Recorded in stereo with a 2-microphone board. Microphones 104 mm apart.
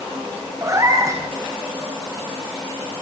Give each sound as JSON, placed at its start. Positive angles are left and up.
{"t": 0.6, "sound": "a cat meowing", "side_deg": -30, "distance_m": 6.0}